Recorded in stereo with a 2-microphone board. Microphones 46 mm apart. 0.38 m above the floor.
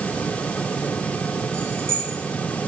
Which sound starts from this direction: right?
Keys jangling, at 1.5 s.